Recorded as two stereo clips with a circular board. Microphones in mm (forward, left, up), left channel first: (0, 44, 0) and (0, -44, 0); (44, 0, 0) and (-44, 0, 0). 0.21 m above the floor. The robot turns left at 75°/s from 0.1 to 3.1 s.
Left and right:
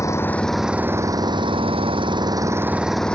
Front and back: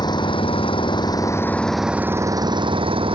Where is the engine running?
35° left; by 3.2 s 170° left.